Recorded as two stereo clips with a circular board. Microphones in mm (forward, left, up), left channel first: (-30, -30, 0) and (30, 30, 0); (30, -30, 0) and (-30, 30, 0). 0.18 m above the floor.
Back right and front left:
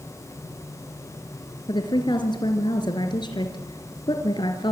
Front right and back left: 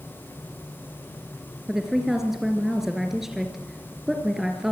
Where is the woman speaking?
140° right, 3 m.